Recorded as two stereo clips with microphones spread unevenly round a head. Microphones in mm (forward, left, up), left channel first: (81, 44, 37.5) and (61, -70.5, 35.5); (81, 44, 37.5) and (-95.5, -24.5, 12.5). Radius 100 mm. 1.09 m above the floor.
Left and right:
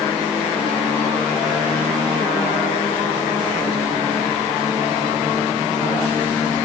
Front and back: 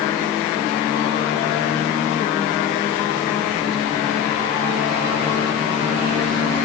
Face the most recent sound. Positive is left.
No sound to turn to.